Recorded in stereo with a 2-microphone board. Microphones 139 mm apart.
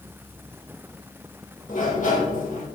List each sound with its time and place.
1.7 s a sliding door: 70° left (ahead or behind), 4 m